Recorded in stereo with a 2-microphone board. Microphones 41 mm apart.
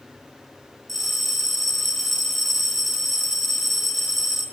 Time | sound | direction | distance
0.9 | a bell | 5° left (ahead or behind) | 2.5 m